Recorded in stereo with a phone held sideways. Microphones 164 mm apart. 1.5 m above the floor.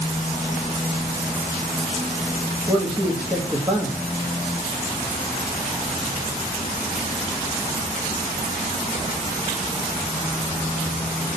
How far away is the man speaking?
About 2.0 m.